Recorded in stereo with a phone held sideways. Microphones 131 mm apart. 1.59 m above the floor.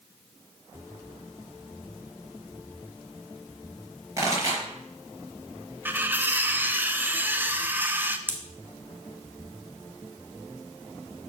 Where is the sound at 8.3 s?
15° right (ahead or behind), 1.1 m.